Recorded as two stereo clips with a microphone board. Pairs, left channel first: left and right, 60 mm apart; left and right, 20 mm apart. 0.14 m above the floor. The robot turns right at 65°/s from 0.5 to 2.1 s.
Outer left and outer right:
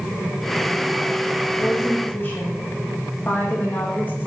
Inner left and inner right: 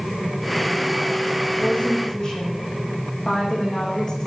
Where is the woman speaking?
110° left, 8.5 m; by 4.3 s 145° left, 8.5 m.